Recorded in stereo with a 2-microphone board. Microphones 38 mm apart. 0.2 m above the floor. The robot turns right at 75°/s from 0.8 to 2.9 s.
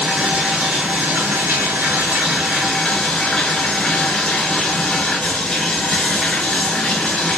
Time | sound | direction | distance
0.0 | running water | 140° right | 1.4 m